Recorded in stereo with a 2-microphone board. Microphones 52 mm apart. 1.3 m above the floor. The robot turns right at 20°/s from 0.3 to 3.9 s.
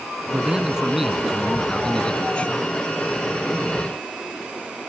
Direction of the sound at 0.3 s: 20° right.